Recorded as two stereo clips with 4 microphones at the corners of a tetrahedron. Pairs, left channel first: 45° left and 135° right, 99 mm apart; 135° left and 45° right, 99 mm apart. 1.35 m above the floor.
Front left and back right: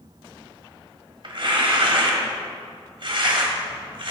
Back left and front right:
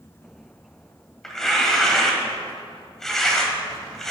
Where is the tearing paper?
140° right, 1.9 m.